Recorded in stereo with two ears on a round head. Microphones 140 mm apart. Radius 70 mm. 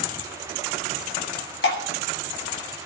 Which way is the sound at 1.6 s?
85° left.